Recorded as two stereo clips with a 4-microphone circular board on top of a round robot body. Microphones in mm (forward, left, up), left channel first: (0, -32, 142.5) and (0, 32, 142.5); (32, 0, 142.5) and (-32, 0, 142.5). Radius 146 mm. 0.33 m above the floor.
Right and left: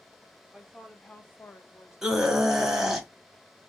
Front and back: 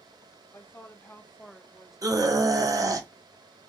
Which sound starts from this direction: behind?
A scream, at 2.0 s.